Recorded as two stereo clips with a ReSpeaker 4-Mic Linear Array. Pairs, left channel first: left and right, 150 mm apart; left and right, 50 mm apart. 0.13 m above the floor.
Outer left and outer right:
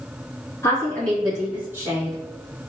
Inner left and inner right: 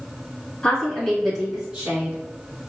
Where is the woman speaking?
20° left (ahead or behind), 1.4 m; by 2.1 s 30° right (ahead or behind), 1.2 m.